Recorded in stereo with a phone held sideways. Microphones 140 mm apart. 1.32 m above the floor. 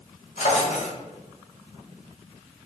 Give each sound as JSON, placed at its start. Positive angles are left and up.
{"t": 0.4, "sound": "a drawer", "side_deg": 60, "distance_m": 1.7}